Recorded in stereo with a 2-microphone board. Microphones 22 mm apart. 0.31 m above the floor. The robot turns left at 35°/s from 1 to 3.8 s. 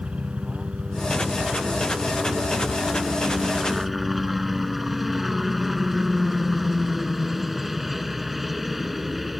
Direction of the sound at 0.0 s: 75° right.